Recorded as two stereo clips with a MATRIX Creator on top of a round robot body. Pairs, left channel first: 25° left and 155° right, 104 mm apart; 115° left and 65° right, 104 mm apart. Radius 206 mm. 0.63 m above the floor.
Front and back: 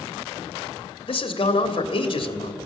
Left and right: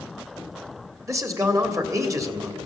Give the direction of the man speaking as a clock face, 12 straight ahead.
12 o'clock.